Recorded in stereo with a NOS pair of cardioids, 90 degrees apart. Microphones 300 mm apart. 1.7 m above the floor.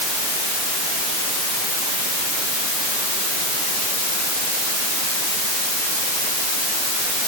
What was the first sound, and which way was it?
Only background noise.